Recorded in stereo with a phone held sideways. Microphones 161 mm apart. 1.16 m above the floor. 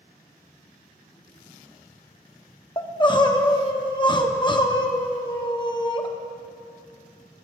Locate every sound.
2.8 s crying: 30° left (ahead or behind), 0.8 m